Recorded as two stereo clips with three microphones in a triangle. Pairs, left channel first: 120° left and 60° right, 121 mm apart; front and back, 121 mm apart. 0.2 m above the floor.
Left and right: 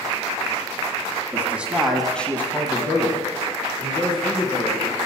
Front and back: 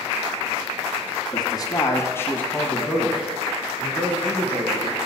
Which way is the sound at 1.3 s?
Straight ahead.